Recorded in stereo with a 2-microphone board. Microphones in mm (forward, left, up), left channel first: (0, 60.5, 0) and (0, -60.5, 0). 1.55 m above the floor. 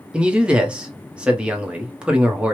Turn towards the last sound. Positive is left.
turn(degrees=-10)  # may be behind; listen again after turning